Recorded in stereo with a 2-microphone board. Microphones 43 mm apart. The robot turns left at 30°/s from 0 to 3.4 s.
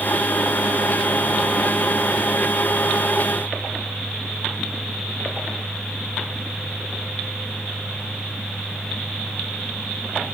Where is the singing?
I don't hear singing.